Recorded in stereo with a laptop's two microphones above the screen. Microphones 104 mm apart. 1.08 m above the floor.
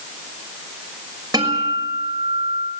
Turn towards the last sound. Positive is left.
turn(degrees=-35)  # may be behind; listen again after turning